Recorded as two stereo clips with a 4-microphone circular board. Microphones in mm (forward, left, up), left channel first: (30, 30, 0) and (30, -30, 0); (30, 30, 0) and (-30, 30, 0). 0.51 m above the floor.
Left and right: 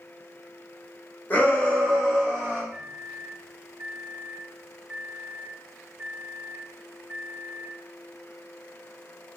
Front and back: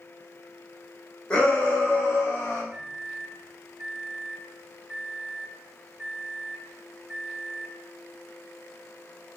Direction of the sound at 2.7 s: 115° right.